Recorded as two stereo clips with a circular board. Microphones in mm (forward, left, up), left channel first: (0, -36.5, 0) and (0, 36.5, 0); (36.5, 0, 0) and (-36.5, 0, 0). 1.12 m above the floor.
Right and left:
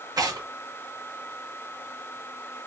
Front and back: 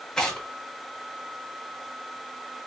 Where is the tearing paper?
80° left, 1.0 m.